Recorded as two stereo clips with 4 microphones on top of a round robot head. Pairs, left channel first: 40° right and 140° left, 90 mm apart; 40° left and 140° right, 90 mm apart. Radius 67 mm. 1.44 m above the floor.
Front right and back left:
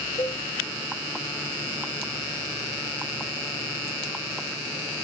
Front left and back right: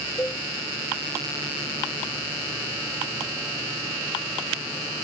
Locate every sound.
0.2 s a cowbell: 20° right, 0.8 m